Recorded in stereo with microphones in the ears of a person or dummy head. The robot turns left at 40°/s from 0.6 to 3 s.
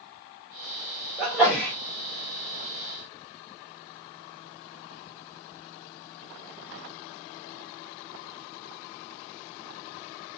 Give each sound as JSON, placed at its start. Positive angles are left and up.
{"t": 1.2, "sound": "a sneeze", "side_deg": -5, "distance_m": 1.7}